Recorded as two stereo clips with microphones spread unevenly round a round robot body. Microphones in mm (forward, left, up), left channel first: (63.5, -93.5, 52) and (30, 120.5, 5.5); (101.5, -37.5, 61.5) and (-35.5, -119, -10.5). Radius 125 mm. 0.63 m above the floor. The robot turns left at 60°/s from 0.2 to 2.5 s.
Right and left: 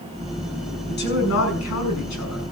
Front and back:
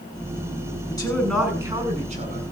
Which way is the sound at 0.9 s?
35° right.